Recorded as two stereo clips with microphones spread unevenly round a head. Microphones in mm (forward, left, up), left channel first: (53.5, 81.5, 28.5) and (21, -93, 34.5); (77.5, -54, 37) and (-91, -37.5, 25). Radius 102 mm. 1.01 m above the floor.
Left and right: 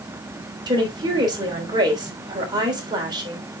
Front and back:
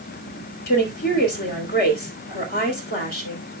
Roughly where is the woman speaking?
Ahead right.